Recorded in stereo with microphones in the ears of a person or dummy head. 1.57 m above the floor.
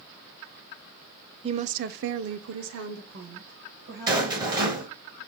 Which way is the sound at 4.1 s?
20° right (ahead or behind).